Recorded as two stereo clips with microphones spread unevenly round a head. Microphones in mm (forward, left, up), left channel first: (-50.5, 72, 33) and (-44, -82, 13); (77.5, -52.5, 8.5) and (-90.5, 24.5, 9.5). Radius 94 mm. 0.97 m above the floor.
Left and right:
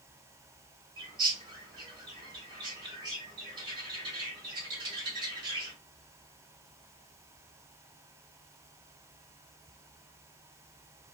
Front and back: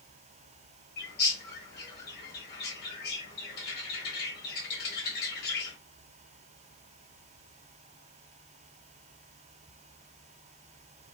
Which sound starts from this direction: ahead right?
A bird, at 1.0 s.